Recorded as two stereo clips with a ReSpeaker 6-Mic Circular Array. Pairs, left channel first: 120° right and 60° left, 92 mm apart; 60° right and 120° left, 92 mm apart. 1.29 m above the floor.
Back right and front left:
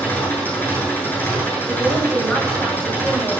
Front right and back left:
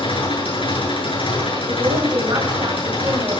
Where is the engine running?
50° right, 8 m.